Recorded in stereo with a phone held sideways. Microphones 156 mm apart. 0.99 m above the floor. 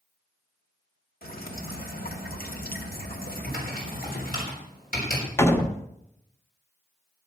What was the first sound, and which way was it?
Dripping, 70° left (ahead or behind).